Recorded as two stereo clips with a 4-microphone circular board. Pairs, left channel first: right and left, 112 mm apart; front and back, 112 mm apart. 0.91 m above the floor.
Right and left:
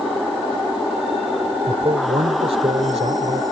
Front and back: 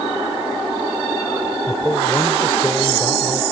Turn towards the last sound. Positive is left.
turn(degrees=70)